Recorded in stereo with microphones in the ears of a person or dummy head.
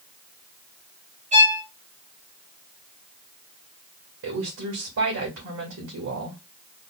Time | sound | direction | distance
1.3 | a violin | 30° right (ahead or behind) | 1.2 m
4.2 | a woman speaking | 70° right (ahead or behind) | 2 m